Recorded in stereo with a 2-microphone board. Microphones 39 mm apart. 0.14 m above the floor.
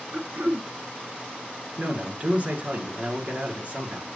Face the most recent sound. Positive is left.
turn(degrees=-40)  # may be behind; listen again after turning